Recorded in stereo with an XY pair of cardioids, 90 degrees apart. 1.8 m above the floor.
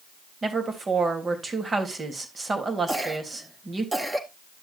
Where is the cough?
15° right, 3 m.